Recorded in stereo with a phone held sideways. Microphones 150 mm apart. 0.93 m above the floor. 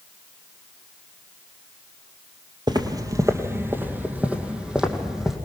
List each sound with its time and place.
2.7 s footsteps: 30° right (ahead or behind), 1.5 m; by 5.3 s centre (ahead or behind), 3 m